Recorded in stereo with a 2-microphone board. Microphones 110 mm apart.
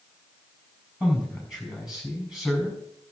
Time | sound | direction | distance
1.0 | a man speaking | 5° right (ahead or behind) | 5 m